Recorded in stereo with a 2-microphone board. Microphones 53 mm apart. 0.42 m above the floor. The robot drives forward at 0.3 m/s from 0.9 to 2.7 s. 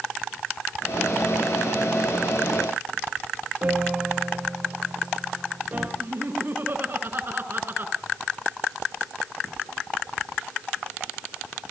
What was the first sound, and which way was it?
A piano, 25° right (ahead or behind).